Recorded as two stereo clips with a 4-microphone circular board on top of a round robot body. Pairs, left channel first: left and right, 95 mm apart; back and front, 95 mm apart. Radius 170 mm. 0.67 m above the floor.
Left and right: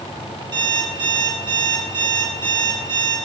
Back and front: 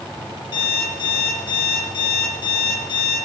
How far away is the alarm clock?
About 3 m.